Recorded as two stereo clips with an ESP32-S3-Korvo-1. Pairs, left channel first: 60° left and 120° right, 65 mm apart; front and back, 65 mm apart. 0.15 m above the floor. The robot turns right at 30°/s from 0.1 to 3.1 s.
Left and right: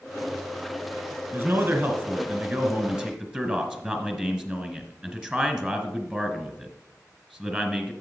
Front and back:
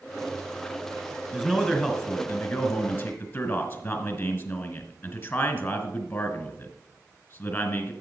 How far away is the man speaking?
About 2 m.